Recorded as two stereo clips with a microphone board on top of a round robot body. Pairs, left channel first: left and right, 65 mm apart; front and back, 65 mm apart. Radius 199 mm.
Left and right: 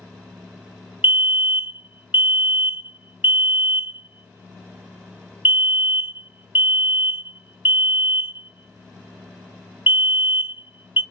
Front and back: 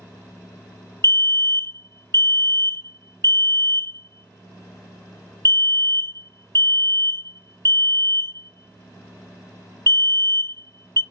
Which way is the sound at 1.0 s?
35° right.